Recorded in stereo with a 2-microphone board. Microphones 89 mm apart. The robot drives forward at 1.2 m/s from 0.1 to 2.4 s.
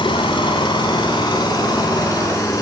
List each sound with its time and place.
0.0 s an engine running: 70° left (ahead or behind), 3 m; by 2.6 s 40° left (ahead or behind), 4 m